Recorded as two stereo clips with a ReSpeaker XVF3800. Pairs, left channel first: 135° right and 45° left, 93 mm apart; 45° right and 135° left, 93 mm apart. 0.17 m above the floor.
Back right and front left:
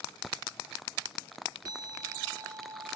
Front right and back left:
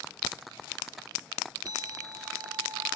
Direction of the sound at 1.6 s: 90° left.